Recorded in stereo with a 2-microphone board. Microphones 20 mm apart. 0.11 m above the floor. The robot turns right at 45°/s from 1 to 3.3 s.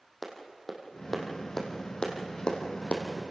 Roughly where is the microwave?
No microwave in this recording.